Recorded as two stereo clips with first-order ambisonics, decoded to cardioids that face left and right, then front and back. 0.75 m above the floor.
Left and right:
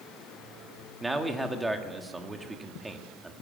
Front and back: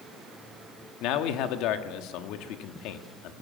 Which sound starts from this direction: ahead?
A man speaking, at 1.0 s.